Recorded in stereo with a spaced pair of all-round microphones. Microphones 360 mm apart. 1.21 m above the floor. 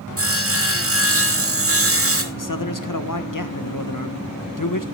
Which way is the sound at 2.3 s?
60° left (ahead or behind).